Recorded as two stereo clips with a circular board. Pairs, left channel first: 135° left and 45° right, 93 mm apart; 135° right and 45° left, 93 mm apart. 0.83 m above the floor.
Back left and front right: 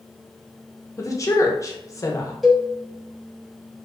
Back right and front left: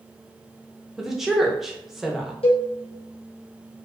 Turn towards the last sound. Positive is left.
turn(degrees=-130)